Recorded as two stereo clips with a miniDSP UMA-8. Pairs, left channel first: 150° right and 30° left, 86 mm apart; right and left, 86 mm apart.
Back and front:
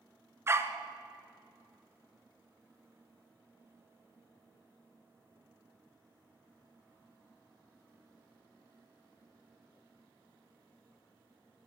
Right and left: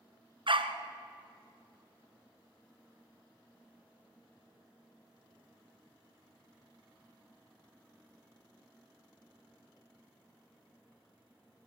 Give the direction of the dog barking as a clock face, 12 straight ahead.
9 o'clock.